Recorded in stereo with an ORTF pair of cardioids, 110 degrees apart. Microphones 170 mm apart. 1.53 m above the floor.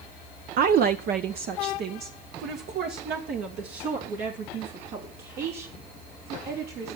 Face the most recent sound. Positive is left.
turn(degrees=-75)